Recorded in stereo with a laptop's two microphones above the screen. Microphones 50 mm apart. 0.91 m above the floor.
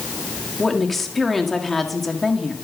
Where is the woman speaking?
5° left (ahead or behind), 1.9 m.